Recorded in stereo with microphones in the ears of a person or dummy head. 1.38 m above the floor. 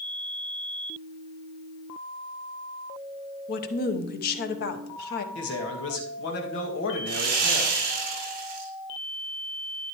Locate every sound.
3.5 s a woman speaking: 55° left (ahead or behind), 1.0 m
5.3 s a man speaking: 65° left (ahead or behind), 2 m
7.1 s sawing: 50° right (ahead or behind), 4.5 m